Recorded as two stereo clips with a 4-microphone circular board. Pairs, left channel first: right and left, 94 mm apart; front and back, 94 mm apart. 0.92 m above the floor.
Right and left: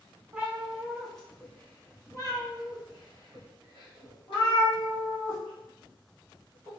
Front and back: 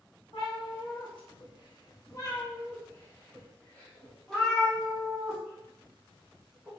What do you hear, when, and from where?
0.3 s a cat meowing: 15° left, 1.2 m; by 6.7 s 95° right, 3 m